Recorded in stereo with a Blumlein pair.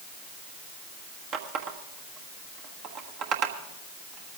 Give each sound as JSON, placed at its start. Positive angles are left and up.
{"t": 1.3, "sound": "a running tap", "azimuth_deg": -35, "distance_m": 1.3}